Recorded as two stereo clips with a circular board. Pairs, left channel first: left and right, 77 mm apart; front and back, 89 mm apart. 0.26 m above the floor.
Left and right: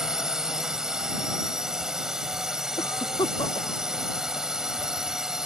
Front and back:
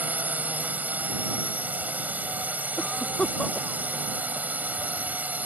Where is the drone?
160° right.